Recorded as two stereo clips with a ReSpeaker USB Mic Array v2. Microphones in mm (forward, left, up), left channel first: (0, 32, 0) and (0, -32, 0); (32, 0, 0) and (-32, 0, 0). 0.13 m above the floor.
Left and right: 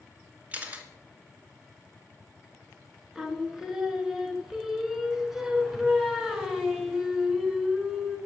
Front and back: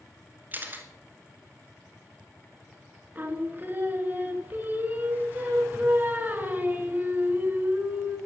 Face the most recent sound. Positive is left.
turn(degrees=-170)